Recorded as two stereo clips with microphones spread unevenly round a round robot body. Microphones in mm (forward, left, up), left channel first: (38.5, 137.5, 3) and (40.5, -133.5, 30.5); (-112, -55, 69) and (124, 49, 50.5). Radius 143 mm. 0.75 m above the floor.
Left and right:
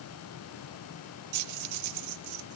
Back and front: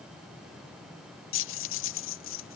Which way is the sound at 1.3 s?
115° right.